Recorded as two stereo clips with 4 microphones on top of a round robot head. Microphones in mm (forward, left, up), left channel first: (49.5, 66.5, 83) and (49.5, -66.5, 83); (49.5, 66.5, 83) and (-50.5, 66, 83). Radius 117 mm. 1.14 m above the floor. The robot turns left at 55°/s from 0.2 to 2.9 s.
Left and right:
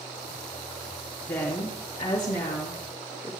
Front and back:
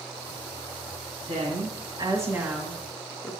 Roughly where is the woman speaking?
Behind.